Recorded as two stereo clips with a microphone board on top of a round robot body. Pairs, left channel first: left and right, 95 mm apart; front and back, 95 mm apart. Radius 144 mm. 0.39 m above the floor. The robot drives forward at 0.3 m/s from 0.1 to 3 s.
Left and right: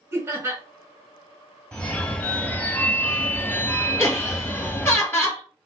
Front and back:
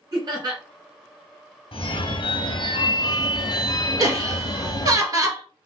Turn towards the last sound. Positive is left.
turn(degrees=150)